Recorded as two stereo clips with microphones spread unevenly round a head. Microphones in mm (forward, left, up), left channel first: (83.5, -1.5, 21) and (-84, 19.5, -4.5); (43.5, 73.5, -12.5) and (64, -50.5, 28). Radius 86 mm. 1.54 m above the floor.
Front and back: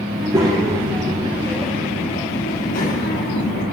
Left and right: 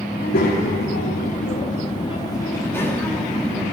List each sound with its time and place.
0.1 s a child speaking: 105° left, 1.8 m; by 3.6 s 5° right, 1.8 m